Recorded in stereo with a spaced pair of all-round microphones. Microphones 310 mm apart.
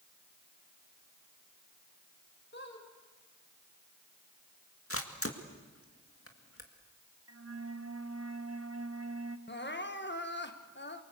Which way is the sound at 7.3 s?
50° right (ahead or behind).